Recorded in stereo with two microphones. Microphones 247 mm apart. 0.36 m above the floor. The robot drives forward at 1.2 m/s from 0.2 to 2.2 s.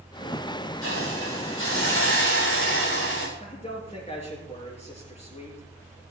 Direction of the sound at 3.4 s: 25° left (ahead or behind).